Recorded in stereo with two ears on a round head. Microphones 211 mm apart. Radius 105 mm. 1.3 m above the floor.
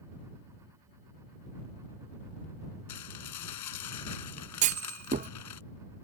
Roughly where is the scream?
No scream in this recording.